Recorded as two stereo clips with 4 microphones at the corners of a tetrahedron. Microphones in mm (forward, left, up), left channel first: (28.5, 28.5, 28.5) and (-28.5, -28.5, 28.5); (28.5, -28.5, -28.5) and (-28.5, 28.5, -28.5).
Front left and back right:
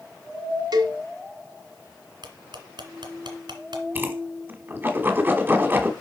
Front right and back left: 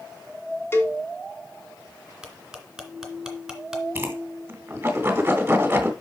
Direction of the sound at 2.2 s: 140° right.